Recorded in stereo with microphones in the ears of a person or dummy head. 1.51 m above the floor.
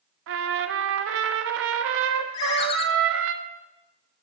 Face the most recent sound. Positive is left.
turn(degrees=25)  # may be behind; listen again after turning